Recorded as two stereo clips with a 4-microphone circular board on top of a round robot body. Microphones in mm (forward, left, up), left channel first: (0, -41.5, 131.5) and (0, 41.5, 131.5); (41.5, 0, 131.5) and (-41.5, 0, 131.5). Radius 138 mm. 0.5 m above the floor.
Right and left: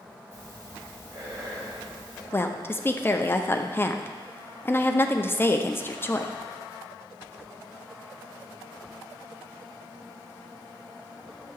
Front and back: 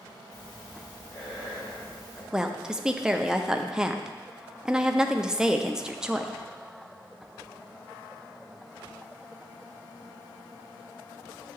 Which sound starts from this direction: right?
A woman speaking, at 2.3 s.